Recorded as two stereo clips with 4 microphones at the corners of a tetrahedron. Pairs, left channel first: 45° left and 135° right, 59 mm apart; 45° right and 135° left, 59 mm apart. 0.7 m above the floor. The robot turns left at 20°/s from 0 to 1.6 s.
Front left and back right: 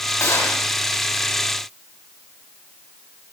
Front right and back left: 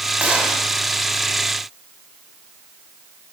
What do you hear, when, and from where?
0.2 s a gunshot: 75° left, 5.5 m; by 0.6 s 70° left, 5.5 m